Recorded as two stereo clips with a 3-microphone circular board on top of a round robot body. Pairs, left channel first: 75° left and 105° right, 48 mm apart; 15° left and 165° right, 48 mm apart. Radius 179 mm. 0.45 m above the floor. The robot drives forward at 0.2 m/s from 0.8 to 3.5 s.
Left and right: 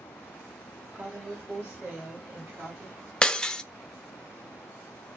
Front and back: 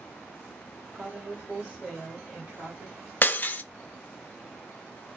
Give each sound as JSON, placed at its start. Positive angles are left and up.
{"t": 0.9, "sound": "a woman speaking", "azimuth_deg": -95, "distance_m": 1.7}
{"t": 3.2, "sound": "breaking glass", "azimuth_deg": 10, "distance_m": 0.6}